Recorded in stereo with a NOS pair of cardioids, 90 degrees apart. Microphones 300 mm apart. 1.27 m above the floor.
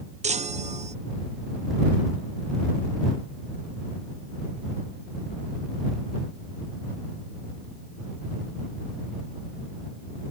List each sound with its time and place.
0.2 s a chime: 25° right